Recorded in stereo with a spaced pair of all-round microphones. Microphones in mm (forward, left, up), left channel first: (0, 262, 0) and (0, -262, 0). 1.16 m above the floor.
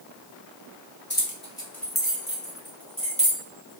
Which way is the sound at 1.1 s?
20° left (ahead or behind).